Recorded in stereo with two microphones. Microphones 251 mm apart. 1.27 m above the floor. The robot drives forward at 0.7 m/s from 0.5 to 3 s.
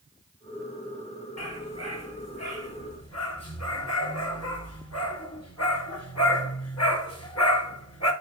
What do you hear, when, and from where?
1.4 s a dog barking: 80° left, 7 m; by 8.1 s 85° left, 7 m